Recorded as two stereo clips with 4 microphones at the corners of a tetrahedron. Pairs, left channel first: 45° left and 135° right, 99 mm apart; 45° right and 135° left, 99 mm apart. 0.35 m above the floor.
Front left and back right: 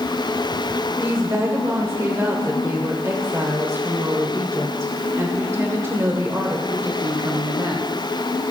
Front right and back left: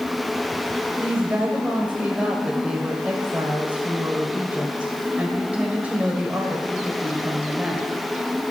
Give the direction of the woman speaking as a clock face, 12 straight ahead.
5 o'clock.